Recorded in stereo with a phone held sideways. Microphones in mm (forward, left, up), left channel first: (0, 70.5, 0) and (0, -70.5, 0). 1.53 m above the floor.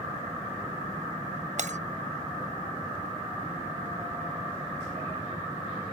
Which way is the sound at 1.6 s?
60° right (ahead or behind).